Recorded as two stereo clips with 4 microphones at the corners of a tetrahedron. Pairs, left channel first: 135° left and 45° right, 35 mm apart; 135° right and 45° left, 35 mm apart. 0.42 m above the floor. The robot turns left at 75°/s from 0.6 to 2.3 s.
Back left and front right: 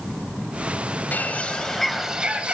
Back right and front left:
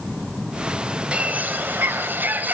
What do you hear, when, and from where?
1.1 s a bird: 105° left, 1.2 m; by 2.5 s 15° left, 1.2 m